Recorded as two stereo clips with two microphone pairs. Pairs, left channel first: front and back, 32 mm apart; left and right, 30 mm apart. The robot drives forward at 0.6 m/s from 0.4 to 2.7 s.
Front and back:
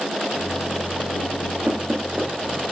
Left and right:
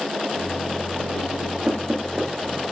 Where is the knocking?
150° right, 3.5 m.